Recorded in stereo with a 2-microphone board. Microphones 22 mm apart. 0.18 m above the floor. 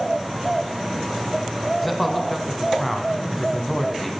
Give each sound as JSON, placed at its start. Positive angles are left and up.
{"t": 1.8, "sound": "a man speaking", "side_deg": 5, "distance_m": 1.1}